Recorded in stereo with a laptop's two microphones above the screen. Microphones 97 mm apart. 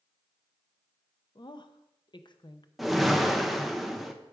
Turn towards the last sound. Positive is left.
turn(degrees=0)  # may be behind; listen again after turning